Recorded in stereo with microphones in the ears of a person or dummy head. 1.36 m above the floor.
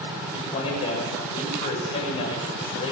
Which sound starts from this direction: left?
A man speaking, at 0.3 s.